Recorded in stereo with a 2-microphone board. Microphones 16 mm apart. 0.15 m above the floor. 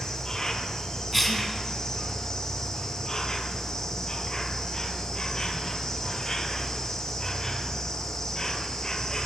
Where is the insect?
40° left (ahead or behind), 1.3 m.